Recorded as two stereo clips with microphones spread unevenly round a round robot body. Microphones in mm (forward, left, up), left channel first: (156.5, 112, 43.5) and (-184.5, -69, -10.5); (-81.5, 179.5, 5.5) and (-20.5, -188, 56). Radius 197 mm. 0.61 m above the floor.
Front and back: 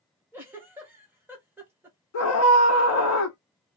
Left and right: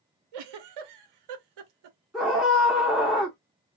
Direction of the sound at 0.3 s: 75° right.